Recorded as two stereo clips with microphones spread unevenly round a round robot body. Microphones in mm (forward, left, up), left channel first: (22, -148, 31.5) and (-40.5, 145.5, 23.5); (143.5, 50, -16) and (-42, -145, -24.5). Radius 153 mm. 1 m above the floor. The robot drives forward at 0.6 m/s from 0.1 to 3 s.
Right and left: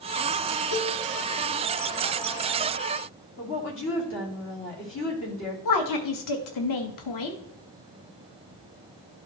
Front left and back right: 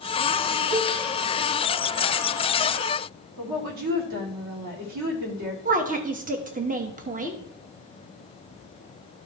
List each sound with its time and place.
0.7 s a cowbell: 90° right, 2 m; by 0.9 s 95° right, 2 m
3.4 s a woman speaking: 125° right, 2.5 m
5.7 s a woman speaking: 75° right, 1.1 m